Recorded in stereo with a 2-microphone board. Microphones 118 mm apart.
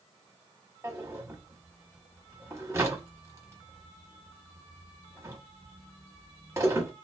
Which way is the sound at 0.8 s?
25° right (ahead or behind).